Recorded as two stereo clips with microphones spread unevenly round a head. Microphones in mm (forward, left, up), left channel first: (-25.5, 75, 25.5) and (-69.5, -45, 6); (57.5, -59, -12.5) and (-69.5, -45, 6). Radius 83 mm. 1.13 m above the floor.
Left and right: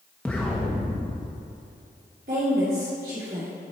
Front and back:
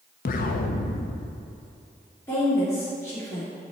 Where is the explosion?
5° right, 0.5 m.